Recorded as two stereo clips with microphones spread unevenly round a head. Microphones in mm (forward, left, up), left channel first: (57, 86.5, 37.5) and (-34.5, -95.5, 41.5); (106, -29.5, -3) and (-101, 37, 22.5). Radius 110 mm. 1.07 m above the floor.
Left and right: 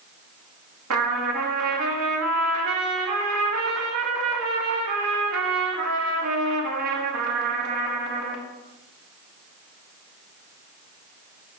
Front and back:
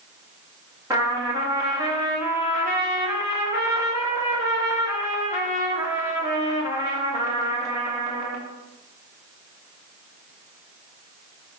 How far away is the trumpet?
About 1.6 m.